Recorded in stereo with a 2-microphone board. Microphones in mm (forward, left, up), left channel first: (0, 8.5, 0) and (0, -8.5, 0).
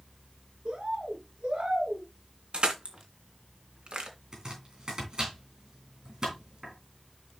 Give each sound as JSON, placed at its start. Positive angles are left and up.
{"t": 0.7, "sound": "a bird", "side_deg": -80, "distance_m": 4.0}
{"t": 2.5, "sound": "crushing", "side_deg": -85, "distance_m": 2.5}
{"t": 4.3, "sound": "chopping", "side_deg": -45, "distance_m": 6.5}